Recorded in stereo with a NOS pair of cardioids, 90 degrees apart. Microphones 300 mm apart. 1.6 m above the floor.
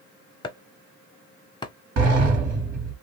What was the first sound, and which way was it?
Chopping, 15° left.